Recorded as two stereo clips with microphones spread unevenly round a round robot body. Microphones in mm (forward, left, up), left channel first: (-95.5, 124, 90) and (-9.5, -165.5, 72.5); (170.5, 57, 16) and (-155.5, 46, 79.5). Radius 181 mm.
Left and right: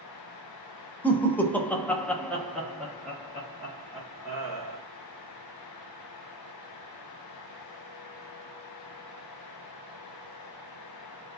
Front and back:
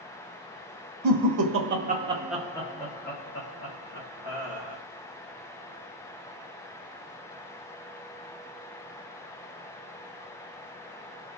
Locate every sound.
1.0 s laughter: 165° right, 0.8 m; by 4.8 s 10° left, 1.5 m